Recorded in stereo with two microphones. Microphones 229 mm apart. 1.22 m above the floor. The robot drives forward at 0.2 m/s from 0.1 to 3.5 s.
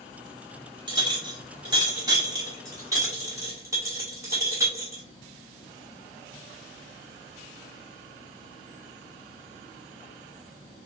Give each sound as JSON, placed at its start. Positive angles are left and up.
{"t": 0.9, "sound": "a clink", "side_deg": -20, "distance_m": 1.3}